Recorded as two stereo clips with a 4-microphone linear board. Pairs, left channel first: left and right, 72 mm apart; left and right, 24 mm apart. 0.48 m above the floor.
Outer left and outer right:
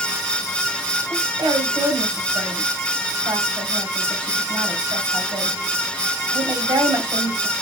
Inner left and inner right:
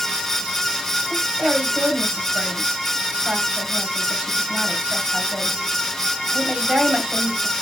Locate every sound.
1.1 s a woman speaking: 70° right (ahead or behind), 2.5 m